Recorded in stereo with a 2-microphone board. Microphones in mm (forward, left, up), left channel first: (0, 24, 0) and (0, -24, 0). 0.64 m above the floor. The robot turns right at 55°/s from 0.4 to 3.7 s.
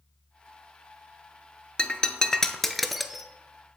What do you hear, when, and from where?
1.8 s breaking glass: 25° left (ahead or behind), 0.6 m; by 3.3 s 5° right (ahead or behind), 0.6 m